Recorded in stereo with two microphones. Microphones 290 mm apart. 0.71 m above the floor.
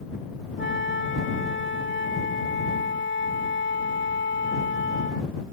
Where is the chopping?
No chopping in this recording.